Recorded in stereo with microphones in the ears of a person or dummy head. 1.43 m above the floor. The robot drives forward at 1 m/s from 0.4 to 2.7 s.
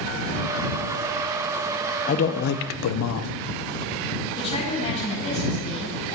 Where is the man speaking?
40° left (ahead or behind), 0.9 m; by 3.3 s 80° left, 0.6 m.